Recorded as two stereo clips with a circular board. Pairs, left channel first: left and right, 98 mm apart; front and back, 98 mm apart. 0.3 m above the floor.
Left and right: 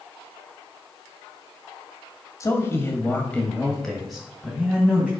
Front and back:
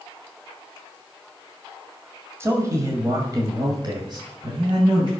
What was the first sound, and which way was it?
A man speaking, 130° left.